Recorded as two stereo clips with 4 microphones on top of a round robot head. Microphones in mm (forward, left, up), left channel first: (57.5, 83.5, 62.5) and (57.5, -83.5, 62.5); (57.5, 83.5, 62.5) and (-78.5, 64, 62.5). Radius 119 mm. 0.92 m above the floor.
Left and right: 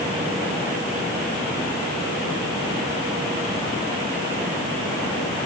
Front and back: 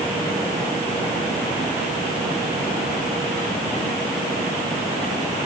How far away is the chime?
No chime in this recording.